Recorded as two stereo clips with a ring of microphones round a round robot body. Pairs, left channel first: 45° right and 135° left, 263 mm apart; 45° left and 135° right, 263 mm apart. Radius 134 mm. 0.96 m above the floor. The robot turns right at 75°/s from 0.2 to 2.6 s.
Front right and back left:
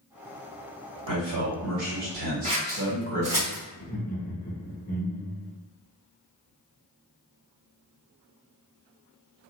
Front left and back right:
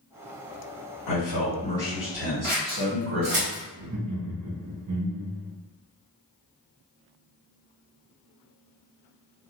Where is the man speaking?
65° left, 1.6 m; by 3.4 s straight behind, 1.6 m.